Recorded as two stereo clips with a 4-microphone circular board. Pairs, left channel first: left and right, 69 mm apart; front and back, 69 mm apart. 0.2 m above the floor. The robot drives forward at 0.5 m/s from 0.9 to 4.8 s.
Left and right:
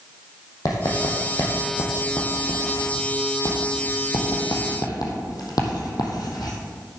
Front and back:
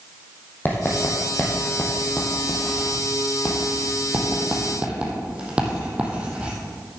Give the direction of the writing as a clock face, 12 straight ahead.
10 o'clock.